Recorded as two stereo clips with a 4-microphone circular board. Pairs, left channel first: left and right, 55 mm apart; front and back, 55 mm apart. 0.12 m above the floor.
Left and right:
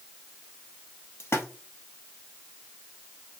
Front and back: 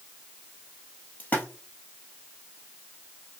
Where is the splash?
55° left, 1.5 m.